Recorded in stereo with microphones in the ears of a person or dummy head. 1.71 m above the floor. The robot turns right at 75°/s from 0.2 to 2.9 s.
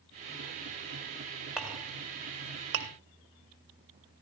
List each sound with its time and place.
1.6 s a clink: 5° right (ahead or behind), 1.9 m; by 2.9 s 60° right (ahead or behind), 1.9 m